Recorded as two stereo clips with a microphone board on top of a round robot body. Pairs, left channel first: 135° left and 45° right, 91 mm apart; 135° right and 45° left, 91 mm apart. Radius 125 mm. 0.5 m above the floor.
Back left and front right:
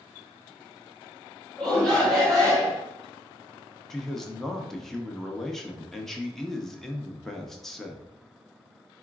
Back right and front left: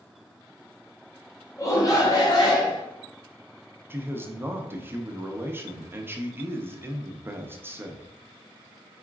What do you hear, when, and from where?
1.6 s a shout: 145° right, 1.6 m; by 2.8 s 135° right, 2 m
3.9 s a man speaking: 55° left, 1.0 m